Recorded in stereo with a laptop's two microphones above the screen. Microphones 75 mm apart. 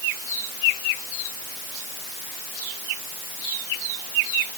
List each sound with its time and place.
Only background noise.